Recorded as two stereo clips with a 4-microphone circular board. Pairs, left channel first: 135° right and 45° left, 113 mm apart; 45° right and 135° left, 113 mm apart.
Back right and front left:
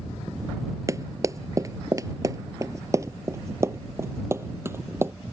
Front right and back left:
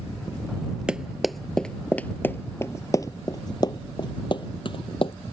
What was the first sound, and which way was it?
Running footsteps, 60° left.